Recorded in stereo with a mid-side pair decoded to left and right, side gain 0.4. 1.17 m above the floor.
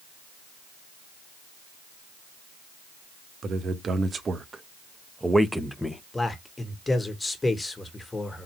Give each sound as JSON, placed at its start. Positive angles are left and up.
{"t": 3.4, "sound": "a man speaking", "azimuth_deg": -55, "distance_m": 1.4}
{"t": 6.1, "sound": "a man speaking", "azimuth_deg": 25, "distance_m": 1.6}